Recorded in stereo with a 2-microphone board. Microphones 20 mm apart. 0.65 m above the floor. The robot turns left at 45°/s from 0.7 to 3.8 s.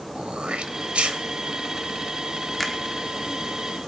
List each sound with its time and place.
0.1 s throat clearing: 70° right (ahead or behind), 0.8 m
2.6 s a finger snap: 5° left (ahead or behind), 1.0 m; by 2.8 s centre (ahead or behind), 1.0 m